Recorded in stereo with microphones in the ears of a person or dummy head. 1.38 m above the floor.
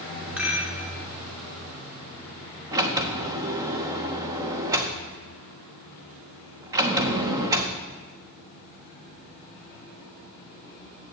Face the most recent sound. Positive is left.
turn(degrees=-15)  # may be behind; listen again after turning